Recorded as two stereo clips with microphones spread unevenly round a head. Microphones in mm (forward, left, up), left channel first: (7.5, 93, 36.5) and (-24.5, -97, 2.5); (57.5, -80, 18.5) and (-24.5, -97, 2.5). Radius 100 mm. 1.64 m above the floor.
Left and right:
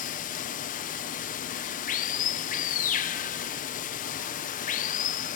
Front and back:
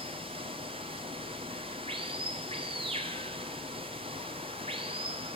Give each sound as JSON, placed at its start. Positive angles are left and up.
{"t": 0.0, "sound": "running water", "azimuth_deg": 130, "distance_m": 1.2}